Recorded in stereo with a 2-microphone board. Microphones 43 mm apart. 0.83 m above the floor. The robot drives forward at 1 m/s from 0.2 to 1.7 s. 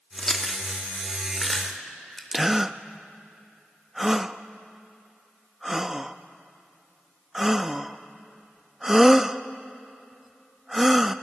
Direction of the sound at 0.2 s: 10° left (ahead or behind).